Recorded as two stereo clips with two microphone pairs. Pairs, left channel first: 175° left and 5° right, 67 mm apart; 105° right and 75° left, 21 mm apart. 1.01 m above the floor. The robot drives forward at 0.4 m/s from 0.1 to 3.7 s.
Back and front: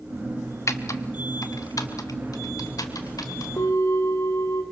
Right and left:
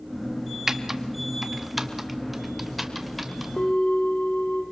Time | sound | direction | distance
0.7 | typing on a keyboard | 145° left | 0.8 m
3.6 | a bell | 150° right | 1.5 m